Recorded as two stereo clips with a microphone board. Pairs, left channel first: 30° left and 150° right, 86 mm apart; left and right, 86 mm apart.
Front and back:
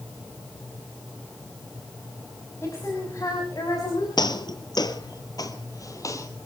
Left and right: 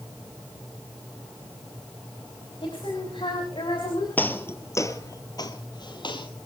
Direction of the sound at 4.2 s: 25° left.